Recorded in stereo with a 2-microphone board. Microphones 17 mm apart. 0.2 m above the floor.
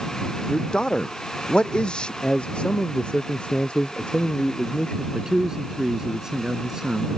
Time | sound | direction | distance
0.5 | a man speaking | 60° left (ahead or behind) | ?
2.2 | a man speaking | 75° left (ahead or behind) | ?
5.1 | a man speaking | 35° right (ahead or behind) | ?